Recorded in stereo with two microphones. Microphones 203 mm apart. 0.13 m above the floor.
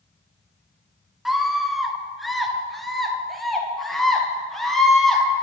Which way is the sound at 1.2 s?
Centre (ahead or behind).